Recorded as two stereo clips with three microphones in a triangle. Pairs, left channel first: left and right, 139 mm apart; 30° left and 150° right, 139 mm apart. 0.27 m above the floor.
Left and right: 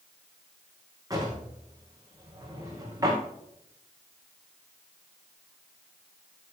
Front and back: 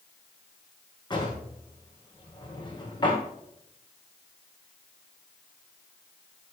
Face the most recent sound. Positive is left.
turn(degrees=-25)